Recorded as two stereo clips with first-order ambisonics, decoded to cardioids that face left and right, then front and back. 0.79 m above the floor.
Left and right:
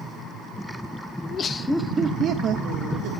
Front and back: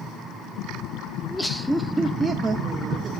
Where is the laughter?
70° left, 0.6 m; by 3.1 s 110° right, 1.0 m.